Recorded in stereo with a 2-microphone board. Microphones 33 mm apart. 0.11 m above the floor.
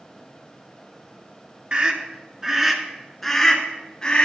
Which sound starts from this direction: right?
A scream, at 1.7 s.